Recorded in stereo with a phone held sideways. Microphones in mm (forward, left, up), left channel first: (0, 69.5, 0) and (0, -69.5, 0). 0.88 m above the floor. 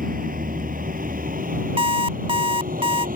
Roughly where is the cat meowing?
I don't hear a cat meowing.